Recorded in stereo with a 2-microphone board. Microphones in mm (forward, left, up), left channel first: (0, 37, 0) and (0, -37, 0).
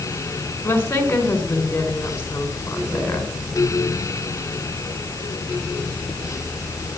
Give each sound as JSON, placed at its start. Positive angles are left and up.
{"t": 0.6, "sound": "a woman speaking", "side_deg": 30, "distance_m": 4.0}